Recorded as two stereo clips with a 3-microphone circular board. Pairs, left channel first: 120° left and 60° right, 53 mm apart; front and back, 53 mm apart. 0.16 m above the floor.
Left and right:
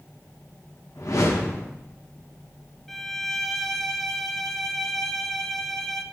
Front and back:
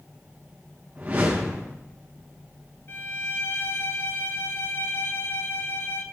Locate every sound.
0.9 s a whoosh: 120° left, 4 m
2.9 s a violin: 35° left, 0.8 m